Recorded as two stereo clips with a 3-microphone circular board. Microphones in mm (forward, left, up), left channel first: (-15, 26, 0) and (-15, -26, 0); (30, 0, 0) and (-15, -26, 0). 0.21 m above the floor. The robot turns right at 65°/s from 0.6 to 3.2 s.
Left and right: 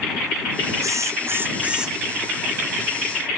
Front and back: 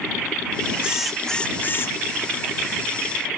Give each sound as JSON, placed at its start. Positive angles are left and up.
{"t": 0.8, "sound": "a drill", "azimuth_deg": -80}